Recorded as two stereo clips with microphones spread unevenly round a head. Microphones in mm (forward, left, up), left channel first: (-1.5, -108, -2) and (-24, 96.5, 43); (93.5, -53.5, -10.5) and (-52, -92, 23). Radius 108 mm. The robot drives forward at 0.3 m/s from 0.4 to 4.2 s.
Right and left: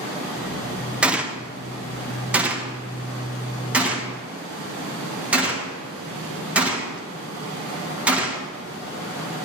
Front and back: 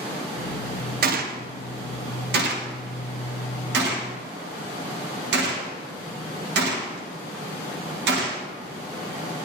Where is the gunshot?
170° right, 0.9 m; by 8.4 s 175° right, 1.7 m.